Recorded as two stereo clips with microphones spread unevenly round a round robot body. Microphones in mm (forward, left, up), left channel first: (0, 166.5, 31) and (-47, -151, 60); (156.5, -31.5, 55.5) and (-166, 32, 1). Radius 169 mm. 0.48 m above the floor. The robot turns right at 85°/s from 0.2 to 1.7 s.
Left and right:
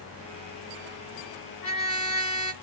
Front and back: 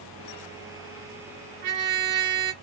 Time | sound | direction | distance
1.6 | a trumpet | 165° left | 2 m